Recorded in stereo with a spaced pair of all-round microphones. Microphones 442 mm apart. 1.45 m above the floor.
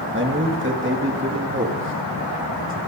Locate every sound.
0.1 s a man speaking: 25° right (ahead or behind), 1.7 m